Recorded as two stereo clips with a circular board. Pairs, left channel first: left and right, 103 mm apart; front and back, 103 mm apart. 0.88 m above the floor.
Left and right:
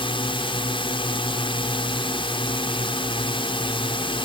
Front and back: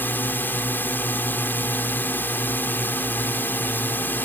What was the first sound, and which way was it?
A drone, 70° left.